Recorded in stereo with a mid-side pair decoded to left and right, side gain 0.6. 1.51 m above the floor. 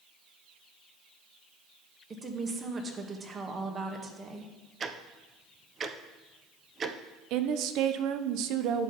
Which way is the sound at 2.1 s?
30° right.